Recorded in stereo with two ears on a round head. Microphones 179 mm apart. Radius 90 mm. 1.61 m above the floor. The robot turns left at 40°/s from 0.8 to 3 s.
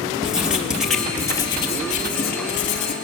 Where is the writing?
175° right, 1.7 m; by 3.0 s 100° left, 1.7 m.